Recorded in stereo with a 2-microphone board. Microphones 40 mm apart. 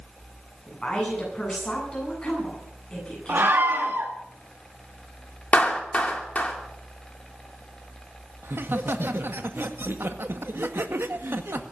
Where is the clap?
35° left (ahead or behind), 2.5 m.